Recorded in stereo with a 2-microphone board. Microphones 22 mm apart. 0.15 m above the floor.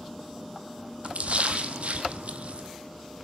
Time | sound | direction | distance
1.0 | a splash | 75° right (ahead or behind) | 1.4 m